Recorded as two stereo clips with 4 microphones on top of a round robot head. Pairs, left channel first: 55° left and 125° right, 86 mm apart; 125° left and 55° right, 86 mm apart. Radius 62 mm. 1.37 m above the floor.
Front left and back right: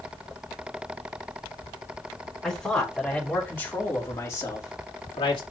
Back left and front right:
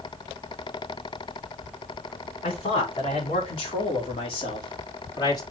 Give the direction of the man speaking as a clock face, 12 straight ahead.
7 o'clock.